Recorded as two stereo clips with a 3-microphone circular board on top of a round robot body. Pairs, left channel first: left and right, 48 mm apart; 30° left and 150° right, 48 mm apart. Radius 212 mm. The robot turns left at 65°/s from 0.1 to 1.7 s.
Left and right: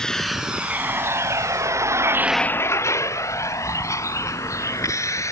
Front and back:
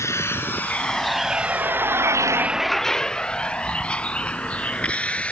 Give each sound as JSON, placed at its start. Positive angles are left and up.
{"t": 0.0, "sound": "a vehicle", "azimuth_deg": 15}